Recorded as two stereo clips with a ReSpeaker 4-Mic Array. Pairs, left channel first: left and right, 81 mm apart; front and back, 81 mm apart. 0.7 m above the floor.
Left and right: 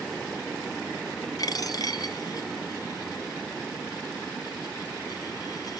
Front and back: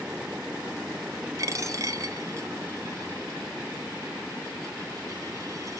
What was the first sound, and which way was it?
A dropped coin, 130° left.